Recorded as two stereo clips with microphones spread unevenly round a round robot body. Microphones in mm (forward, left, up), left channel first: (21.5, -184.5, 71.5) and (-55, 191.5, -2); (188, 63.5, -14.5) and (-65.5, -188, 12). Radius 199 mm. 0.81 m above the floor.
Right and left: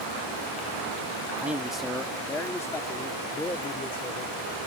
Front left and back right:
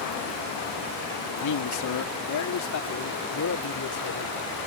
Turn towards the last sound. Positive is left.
turn(degrees=0)